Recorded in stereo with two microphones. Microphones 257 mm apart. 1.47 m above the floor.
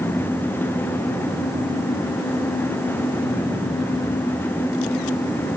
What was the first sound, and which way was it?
Only background noise.